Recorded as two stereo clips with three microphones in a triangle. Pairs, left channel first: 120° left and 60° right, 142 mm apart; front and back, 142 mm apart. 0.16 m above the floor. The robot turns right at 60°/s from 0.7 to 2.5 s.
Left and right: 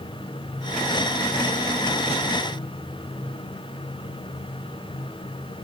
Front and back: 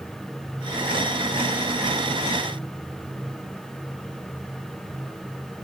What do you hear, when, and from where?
Only background noise.